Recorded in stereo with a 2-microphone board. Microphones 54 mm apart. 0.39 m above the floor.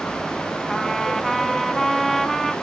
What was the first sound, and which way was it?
A trumpet, 5° left (ahead or behind).